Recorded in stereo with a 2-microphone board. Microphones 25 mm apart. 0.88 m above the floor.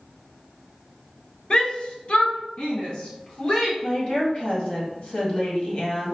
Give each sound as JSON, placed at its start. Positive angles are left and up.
{"t": 1.5, "sound": "a shout", "side_deg": 35, "distance_m": 0.7}
{"t": 3.8, "sound": "a woman speaking", "side_deg": 45, "distance_m": 1.6}